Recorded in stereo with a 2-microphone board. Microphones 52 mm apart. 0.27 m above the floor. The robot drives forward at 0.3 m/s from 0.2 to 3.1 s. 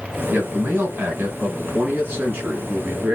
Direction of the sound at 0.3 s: 45° right (ahead or behind).